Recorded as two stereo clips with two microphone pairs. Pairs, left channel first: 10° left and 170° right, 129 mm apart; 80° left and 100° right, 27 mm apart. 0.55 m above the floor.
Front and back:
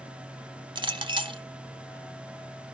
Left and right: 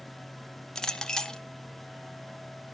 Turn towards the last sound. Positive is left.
turn(degrees=145)